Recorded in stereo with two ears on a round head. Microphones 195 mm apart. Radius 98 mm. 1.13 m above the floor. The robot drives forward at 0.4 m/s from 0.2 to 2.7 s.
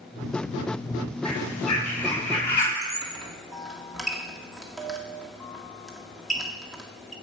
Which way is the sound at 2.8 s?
Centre (ahead or behind).